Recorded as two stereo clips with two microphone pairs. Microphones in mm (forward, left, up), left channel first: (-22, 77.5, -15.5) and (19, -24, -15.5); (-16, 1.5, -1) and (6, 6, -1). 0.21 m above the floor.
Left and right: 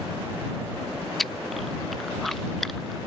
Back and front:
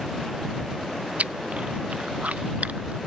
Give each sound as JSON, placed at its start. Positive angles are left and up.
{"t": 1.2, "sound": "chewing", "azimuth_deg": 25}